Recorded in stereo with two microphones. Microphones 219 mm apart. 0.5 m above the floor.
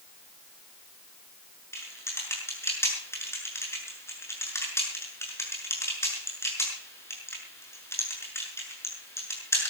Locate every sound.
1.7 s typing on a keyboard: 10° left (ahead or behind), 7 m